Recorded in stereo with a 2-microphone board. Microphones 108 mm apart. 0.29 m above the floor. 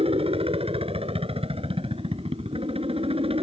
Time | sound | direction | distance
0.0 | a helicopter | 65° right (ahead or behind) | ?